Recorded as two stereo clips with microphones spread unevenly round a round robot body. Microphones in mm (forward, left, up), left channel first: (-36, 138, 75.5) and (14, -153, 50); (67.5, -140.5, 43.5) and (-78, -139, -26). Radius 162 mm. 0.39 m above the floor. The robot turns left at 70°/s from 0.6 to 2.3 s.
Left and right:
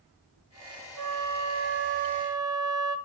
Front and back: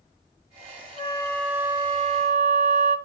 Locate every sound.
1.0 s a flute: 65° right, 1.9 m; by 3.0 s 155° right, 1.9 m